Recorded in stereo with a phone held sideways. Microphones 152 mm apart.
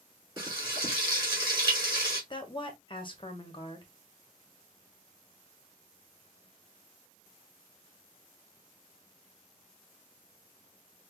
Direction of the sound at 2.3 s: 35° left (ahead or behind).